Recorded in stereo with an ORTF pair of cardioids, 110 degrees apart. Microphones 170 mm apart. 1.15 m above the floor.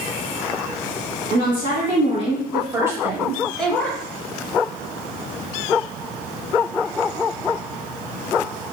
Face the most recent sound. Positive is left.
turn(degrees=10)